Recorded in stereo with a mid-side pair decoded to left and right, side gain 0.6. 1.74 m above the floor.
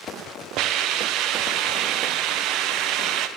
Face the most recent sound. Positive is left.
turn(degrees=-65)